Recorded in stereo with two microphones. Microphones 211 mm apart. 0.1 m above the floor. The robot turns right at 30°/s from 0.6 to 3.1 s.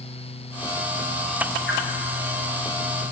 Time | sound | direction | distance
1.7 | a whoosh | 65° left (ahead or behind) | 3 m